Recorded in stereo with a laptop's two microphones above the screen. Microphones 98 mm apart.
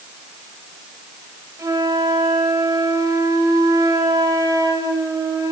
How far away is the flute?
About 5 m.